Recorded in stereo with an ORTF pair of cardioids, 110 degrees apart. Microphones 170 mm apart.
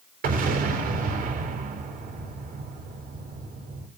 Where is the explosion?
55° right, 3.5 m.